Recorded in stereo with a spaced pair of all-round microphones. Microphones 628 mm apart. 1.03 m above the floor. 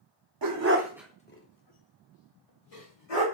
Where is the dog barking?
35° right (ahead or behind), 0.6 m; by 3.2 s 65° left (ahead or behind), 1.5 m.